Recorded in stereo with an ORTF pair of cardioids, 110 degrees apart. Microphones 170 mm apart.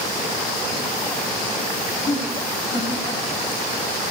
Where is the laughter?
35° left, 2.5 m.